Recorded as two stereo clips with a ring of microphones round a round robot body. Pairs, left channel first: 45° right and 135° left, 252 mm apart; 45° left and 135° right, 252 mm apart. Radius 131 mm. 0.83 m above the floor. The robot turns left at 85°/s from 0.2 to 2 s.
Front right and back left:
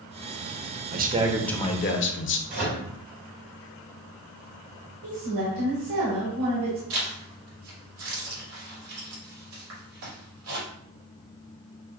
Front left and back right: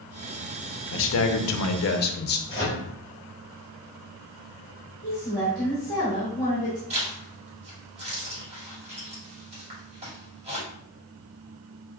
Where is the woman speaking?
120° left, 2.5 m.